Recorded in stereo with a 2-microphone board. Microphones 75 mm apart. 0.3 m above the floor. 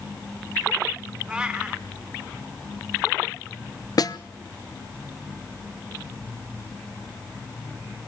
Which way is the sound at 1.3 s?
10° right (ahead or behind).